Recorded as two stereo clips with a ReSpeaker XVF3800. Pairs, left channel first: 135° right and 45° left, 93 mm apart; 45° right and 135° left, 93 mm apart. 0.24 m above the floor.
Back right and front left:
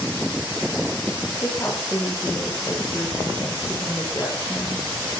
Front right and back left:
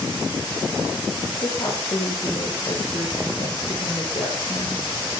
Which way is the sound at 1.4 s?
70° right.